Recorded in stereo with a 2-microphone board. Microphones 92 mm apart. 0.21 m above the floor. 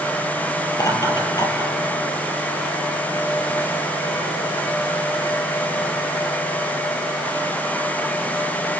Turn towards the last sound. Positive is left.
turn(degrees=50)  # may be behind; listen again after turning